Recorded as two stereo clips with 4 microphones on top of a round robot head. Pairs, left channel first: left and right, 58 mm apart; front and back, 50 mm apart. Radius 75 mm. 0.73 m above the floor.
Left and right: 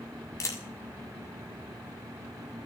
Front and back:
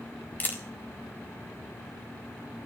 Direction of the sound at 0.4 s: 50° left.